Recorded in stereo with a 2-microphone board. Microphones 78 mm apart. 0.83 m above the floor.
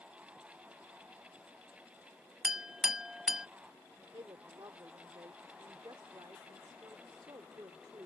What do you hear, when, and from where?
2.4 s a clink: 5° right (ahead or behind)
4.1 s a woman speaking: 70° right (ahead or behind)